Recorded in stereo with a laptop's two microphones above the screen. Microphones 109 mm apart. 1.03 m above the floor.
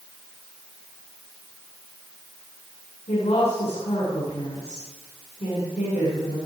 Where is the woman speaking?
85° left, 10 m.